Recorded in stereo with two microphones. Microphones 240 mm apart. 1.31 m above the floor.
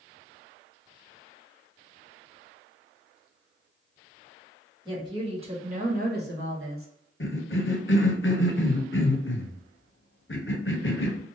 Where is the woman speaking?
15° right (ahead or behind), 1.5 m; by 6.9 s 65° right (ahead or behind), 0.9 m.